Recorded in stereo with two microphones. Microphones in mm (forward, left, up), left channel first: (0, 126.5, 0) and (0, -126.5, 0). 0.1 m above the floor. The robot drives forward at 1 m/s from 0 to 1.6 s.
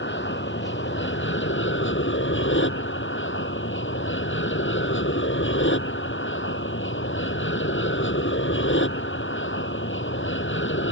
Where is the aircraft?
45° left (ahead or behind); by 10.9 s 50° left (ahead or behind).